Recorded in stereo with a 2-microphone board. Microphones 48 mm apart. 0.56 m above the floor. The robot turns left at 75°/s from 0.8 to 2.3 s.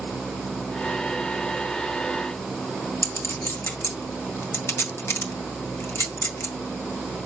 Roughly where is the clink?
Left.